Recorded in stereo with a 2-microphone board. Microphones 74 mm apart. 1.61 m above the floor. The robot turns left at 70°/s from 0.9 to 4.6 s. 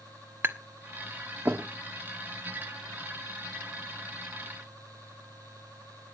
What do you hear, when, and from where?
0.4 s tapping: 30° right (ahead or behind), 1.3 m; by 1.6 s 35° right (ahead or behind), 1.3 m